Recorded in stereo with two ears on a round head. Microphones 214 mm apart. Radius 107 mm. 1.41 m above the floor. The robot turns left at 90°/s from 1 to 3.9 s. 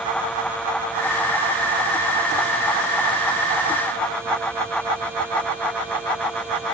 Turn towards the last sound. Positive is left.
No sound to turn to.